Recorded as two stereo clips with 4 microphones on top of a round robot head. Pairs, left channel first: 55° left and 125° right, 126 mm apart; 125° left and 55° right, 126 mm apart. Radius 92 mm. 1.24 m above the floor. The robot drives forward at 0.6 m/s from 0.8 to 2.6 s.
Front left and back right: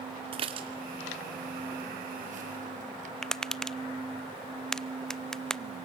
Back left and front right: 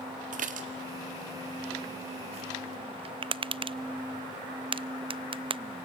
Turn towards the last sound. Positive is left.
turn(degrees=-25)